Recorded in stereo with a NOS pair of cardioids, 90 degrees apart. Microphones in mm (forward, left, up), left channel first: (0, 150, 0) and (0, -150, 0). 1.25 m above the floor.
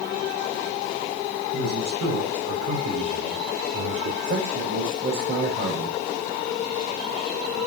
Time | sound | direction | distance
1.5 | a man speaking | 55° right | 7 m
4.2 | a man speaking | 40° right | 7 m